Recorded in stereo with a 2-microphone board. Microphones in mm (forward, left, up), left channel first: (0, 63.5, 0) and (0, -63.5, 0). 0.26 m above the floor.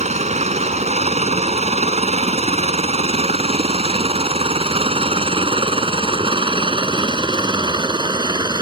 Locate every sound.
0.0 s a helicopter: 60° right (ahead or behind); by 8.6 s 35° right (ahead or behind)